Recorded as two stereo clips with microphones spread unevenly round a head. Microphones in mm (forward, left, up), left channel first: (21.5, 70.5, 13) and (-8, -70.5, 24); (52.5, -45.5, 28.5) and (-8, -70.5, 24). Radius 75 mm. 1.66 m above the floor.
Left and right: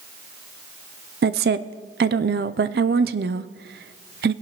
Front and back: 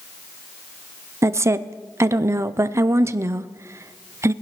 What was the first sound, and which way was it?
A woman speaking, 110° right.